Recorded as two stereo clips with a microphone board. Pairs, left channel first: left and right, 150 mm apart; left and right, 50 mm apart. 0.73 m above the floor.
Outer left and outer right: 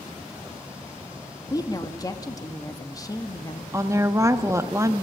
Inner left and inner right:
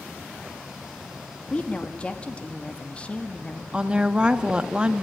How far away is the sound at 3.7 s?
About 0.8 m.